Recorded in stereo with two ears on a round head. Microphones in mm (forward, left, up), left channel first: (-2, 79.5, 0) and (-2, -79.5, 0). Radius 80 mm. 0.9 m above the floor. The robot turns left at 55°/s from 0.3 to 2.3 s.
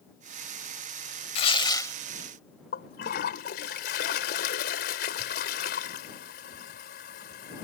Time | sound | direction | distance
1.4 | tearing paper | 55° left | ?
2.7 | a toilet flushing | 60° left (ahead or behind) | ?